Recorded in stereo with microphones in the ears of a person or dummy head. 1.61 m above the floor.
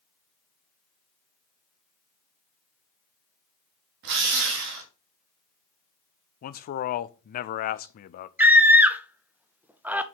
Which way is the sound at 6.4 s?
50° left (ahead or behind).